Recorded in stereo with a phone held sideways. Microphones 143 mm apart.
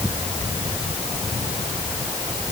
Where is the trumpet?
I don't hear a trumpet.